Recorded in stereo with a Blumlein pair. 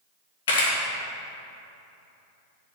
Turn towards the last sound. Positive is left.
turn(degrees=60)